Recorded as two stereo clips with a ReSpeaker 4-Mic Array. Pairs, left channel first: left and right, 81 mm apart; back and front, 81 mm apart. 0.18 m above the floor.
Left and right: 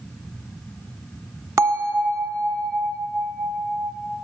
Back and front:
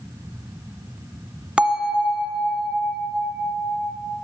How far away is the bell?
About 1.1 m.